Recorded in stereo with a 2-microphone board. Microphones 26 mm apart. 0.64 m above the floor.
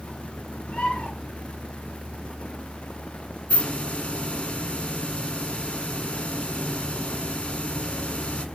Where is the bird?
55° left (ahead or behind), 4 m.